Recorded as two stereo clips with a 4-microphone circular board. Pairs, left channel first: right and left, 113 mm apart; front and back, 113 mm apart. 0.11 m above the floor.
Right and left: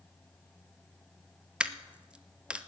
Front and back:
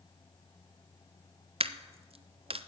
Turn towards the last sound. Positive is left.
turn(degrees=170)